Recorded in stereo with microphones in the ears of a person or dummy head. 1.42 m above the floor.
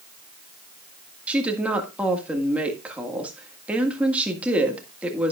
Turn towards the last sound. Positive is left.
turn(degrees=-5)  # may be behind; listen again after turning